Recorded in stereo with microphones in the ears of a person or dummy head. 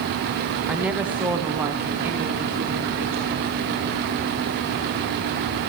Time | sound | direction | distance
0.7 | a woman speaking | 5° right (ahead or behind) | 0.9 m